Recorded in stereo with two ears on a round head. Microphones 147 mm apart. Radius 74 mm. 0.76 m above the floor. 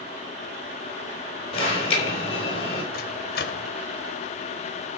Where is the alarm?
40° left (ahead or behind), 4 m.